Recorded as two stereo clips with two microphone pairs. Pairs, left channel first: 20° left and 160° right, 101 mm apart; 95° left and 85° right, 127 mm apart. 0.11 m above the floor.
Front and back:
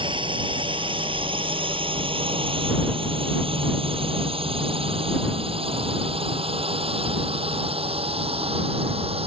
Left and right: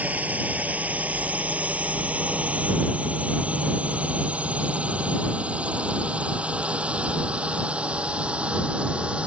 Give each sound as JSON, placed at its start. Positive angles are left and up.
{"t": 0.0, "sound": "a drone", "azimuth_deg": -160}